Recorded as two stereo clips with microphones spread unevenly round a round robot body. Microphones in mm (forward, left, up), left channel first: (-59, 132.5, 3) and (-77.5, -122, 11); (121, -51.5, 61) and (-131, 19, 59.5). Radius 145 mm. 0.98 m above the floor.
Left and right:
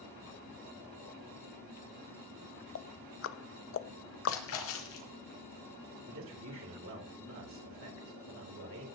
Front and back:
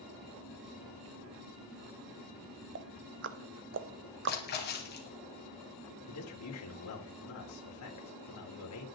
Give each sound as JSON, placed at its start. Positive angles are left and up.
{"t": 2.8, "sound": "ticking", "azimuth_deg": 120, "distance_m": 0.8}
{"t": 4.3, "sound": "a splash", "azimuth_deg": 40, "distance_m": 2.5}
{"t": 6.1, "sound": "a man speaking", "azimuth_deg": -45, "distance_m": 3.0}